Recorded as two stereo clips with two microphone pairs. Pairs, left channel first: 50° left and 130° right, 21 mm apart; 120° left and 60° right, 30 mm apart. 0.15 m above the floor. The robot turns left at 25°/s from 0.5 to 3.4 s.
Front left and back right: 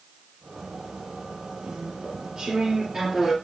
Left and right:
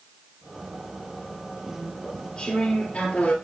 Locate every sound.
1.6 s chewing: 165° right, 2.5 m; by 3.3 s 150° left, 2.5 m